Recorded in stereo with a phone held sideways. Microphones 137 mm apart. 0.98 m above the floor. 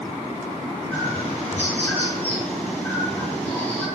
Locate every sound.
0.9 s a bird: 15° left (ahead or behind), 7 m